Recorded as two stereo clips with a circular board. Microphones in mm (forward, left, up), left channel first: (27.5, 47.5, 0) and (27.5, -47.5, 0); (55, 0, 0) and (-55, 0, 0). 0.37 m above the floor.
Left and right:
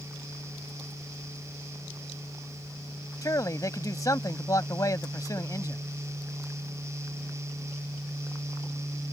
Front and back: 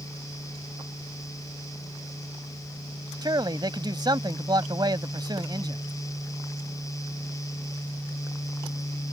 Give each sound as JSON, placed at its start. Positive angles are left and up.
{"t": 3.2, "sound": "a man speaking", "azimuth_deg": 135}